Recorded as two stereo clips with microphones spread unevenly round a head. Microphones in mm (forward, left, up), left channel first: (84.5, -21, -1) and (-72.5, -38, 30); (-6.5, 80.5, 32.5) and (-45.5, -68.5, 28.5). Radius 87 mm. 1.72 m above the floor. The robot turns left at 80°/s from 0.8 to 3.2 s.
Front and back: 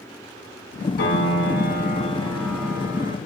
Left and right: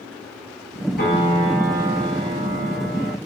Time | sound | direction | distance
1.0 | a piano | 35° left | 4 m